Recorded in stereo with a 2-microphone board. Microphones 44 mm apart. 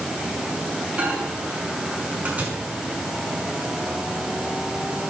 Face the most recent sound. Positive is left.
turn(degrees=-30)  # may be behind; listen again after turning